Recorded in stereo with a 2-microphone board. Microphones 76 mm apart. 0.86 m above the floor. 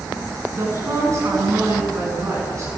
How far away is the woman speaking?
About 9.5 m.